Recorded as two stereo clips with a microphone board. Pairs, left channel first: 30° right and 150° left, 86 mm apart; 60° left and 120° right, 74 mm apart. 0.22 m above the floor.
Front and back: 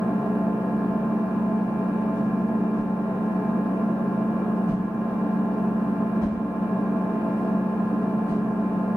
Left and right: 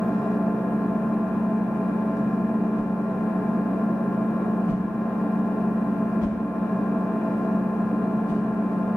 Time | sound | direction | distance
0.0 | an engine running | 160° left | 0.9 m
2.7 | a whoosh | 175° left | 1.5 m